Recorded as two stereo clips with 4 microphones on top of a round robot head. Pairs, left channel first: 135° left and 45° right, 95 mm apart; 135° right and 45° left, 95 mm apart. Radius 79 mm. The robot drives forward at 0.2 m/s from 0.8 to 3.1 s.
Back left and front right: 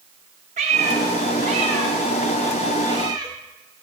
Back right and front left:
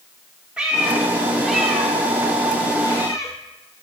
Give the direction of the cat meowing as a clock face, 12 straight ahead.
1 o'clock.